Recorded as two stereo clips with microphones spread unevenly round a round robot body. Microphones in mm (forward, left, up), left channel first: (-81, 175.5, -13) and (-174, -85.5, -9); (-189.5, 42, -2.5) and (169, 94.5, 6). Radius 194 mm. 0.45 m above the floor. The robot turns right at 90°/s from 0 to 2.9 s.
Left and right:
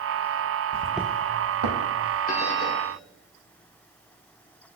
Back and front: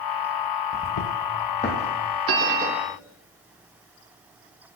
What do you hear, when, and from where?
0.7 s footsteps: 110° left, 0.6 m; by 2.2 s 45° right, 1.6 m
2.3 s a bell: 30° left, 0.5 m; by 3.0 s 85° left, 0.5 m